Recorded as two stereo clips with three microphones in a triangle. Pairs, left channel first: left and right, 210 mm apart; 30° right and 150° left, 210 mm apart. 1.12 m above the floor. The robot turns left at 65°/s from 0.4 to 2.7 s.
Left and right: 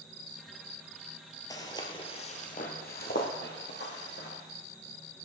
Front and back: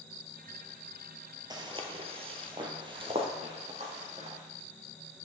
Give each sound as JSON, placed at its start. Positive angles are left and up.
{"t": 1.5, "sound": "footsteps", "azimuth_deg": 130, "distance_m": 1.1}